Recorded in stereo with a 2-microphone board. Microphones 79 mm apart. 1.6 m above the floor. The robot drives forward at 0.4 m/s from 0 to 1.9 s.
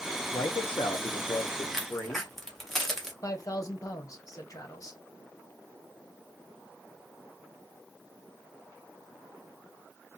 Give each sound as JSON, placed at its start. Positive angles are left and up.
{"t": 0.3, "sound": "a man speaking", "side_deg": 80, "distance_m": 0.5}
{"t": 1.7, "sound": "a crack", "side_deg": 5, "distance_m": 0.8}
{"t": 3.2, "sound": "a man speaking", "side_deg": 45, "distance_m": 1.0}